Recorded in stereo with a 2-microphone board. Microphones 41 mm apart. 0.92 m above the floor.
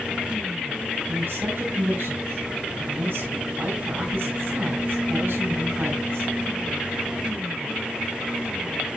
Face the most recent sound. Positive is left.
turn(degrees=-65)  # may be behind; listen again after turning